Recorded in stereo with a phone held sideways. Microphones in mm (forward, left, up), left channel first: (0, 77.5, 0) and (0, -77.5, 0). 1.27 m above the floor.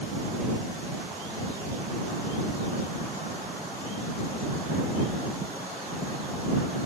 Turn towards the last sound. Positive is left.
No sound to turn to.